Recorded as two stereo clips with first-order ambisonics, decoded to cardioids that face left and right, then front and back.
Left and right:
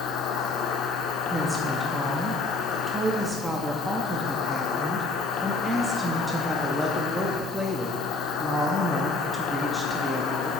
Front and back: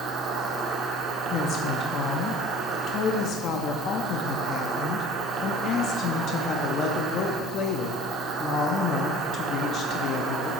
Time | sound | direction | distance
0.0 | an insect | 130° left | 0.8 m
1.3 | a woman speaking | 5° right | 0.6 m